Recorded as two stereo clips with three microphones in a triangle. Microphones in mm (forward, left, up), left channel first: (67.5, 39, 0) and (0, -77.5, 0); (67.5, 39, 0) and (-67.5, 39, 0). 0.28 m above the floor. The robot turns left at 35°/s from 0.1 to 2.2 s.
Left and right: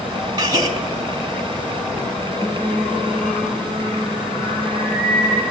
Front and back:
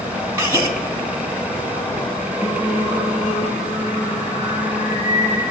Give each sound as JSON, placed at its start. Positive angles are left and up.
{"t": 0.4, "sound": "a gasp", "azimuth_deg": -135, "distance_m": 1.6}
{"t": 2.4, "sound": "singing", "azimuth_deg": -30, "distance_m": 1.9}